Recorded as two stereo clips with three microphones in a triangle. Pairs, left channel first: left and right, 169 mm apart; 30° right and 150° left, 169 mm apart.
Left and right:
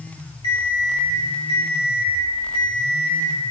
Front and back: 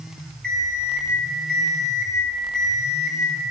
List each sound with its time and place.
0.4 s an alarm clock: 155° left, 3 m